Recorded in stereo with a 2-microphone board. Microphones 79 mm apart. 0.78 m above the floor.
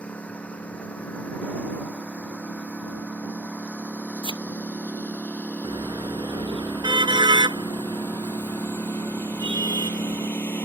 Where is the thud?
80° left.